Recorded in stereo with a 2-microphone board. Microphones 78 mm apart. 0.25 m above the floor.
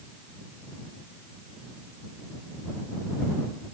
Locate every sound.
Only background noise.